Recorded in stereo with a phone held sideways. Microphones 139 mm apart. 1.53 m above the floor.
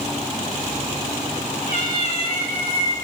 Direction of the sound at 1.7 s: 55° left (ahead or behind).